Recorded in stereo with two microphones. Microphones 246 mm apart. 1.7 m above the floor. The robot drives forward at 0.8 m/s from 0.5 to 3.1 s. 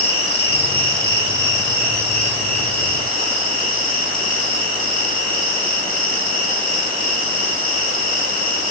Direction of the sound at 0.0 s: 60° left (ahead or behind).